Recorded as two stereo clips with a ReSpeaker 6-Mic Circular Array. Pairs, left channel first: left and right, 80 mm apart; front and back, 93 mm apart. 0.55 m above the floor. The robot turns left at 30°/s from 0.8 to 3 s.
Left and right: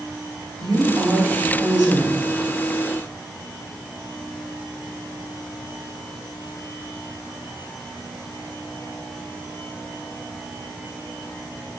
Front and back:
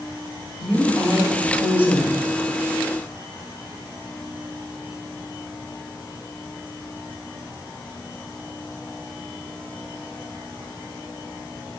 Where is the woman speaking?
80° right, 1.9 m; by 2.2 s 120° right, 1.9 m.